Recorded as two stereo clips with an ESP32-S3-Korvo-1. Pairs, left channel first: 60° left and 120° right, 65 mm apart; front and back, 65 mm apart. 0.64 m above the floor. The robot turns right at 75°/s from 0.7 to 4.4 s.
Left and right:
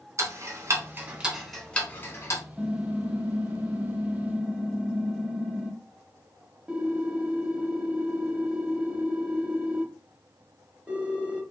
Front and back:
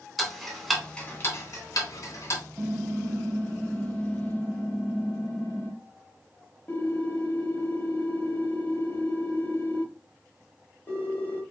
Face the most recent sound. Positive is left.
turn(degrees=-50)